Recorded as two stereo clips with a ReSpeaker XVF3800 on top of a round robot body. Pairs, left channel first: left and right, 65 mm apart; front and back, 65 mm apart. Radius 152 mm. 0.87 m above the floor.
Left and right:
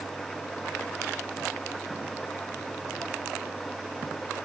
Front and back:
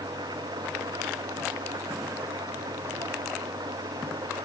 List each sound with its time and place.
0.0 s an engine running: straight behind